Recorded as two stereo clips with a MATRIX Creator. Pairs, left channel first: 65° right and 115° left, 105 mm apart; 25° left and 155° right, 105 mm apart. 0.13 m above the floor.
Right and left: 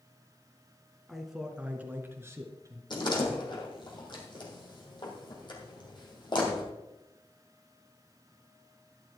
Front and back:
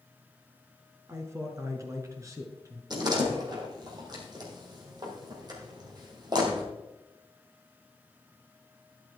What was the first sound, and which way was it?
A man speaking, 155° right.